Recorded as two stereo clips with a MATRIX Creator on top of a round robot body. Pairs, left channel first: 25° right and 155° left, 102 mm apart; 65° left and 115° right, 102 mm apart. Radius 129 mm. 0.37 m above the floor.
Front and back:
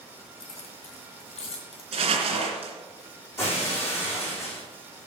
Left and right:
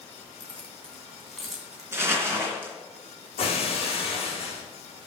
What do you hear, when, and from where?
0.4 s keys jangling: 5° right, 3 m; by 1.8 s 30° right, 2.5 m
1.9 s crumpling: straight behind, 3 m
3.4 s breaking glass: 40° left, 5 m